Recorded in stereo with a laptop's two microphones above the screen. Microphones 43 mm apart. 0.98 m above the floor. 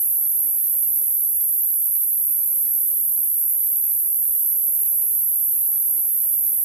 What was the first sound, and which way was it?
An insect, 45° right (ahead or behind).